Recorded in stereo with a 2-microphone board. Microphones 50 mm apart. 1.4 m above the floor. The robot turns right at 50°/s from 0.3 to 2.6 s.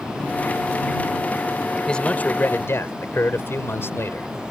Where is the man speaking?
15° left; by 4.3 s 55° left.